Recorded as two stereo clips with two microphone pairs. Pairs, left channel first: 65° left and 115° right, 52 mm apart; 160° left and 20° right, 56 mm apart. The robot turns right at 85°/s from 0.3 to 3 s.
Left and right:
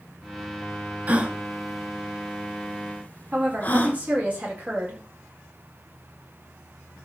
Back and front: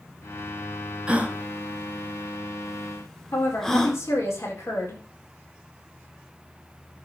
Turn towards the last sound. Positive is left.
turn(degrees=-175)